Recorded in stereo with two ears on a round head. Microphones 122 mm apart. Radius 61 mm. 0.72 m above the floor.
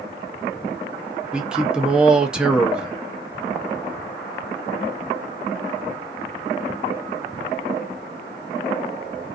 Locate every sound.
1.3 s a man speaking: 5° right (ahead or behind), 0.5 m